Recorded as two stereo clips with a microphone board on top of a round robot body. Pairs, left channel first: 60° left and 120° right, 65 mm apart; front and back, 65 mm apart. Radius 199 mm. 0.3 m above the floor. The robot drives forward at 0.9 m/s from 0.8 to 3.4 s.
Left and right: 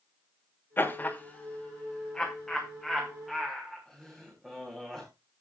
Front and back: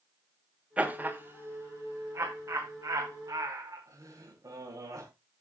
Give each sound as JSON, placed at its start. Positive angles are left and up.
{"t": 0.8, "sound": "laughter", "azimuth_deg": 110, "distance_m": 1.6}